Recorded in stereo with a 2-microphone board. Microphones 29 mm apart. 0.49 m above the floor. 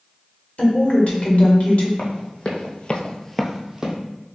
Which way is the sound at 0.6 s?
55° left (ahead or behind).